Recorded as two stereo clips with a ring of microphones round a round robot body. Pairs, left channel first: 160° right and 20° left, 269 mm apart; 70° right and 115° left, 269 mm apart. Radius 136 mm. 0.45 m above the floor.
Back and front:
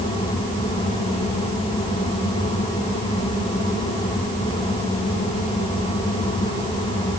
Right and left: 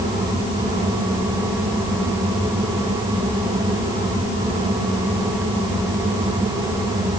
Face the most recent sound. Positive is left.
No sound to turn to.